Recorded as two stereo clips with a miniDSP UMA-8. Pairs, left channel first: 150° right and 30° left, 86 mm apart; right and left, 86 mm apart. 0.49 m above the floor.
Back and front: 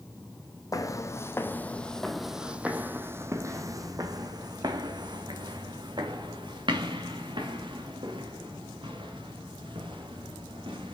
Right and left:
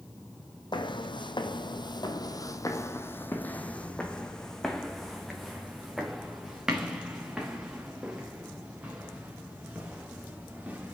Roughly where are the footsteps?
Right.